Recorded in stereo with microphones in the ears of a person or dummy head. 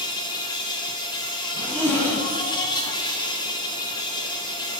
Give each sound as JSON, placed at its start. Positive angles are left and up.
{"t": 0.0, "sound": "an insect", "side_deg": 20, "distance_m": 0.7}
{"t": 1.5, "sound": "a zipper", "side_deg": 10, "distance_m": 1.0}